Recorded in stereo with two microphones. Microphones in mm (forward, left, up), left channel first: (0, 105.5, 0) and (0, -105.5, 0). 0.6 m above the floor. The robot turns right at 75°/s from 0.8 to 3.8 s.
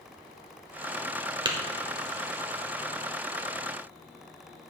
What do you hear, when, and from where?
1.4 s tapping: 25° right (ahead or behind), 1.2 m; by 1.6 s 15° right (ahead or behind), 1.2 m